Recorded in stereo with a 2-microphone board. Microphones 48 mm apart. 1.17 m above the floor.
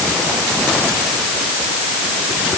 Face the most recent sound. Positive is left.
No sound to turn to.